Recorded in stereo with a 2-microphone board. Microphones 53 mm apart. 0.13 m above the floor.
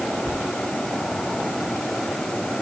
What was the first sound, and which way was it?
Only background noise.